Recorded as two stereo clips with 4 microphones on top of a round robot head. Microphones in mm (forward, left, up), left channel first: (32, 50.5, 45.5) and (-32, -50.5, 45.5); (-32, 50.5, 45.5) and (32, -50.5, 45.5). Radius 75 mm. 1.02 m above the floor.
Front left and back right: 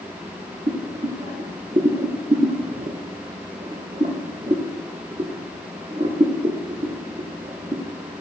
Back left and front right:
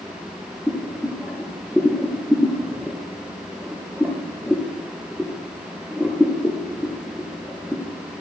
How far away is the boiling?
About 0.6 m.